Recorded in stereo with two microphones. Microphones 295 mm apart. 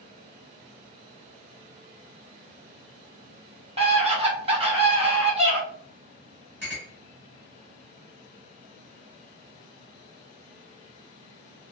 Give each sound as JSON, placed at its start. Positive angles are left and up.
{"t": 3.8, "sound": "a scream", "side_deg": -20, "distance_m": 1.2}
{"t": 6.6, "sound": "a clink", "side_deg": -35, "distance_m": 1.5}